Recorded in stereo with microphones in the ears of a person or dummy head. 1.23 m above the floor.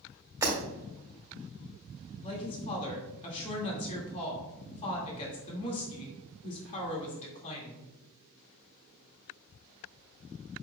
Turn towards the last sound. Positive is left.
turn(degrees=35)  # may be behind; listen again after turning